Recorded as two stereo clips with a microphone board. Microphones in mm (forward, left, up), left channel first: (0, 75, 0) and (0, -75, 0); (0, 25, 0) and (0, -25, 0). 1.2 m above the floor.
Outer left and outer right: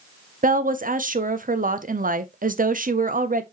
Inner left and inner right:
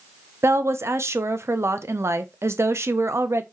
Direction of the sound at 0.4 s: 65° right (ahead or behind).